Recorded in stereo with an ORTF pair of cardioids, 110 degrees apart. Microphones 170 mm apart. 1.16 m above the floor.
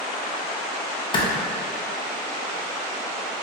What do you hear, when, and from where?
1.1 s a clap: 30° left, 0.6 m